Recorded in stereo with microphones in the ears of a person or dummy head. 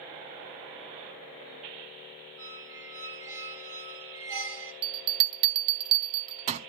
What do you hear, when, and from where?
2.4 s a squeak: 15° right (ahead or behind), 3.5 m
4.8 s a bell: 30° right (ahead or behind), 0.9 m